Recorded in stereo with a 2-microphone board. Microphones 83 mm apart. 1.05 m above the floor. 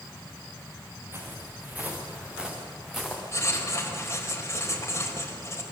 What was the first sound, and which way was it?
Footsteps, 30° right (ahead or behind).